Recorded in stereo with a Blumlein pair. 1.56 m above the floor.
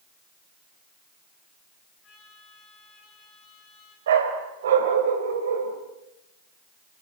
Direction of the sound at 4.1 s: 60° right.